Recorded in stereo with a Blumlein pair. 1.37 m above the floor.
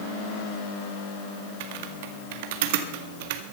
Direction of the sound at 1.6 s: 50° right.